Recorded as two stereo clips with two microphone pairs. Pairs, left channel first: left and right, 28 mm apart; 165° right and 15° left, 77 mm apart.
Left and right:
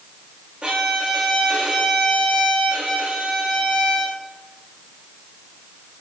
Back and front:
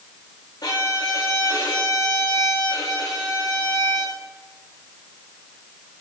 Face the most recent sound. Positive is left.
turn(degrees=-135)